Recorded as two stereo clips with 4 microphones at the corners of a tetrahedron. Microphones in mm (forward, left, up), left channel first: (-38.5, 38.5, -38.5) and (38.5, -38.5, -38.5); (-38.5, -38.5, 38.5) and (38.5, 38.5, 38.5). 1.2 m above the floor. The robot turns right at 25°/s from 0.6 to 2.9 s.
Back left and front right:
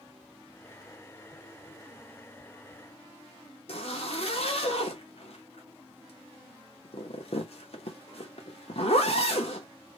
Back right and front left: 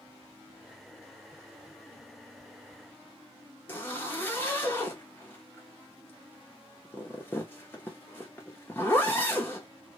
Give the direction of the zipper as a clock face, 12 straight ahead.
7 o'clock.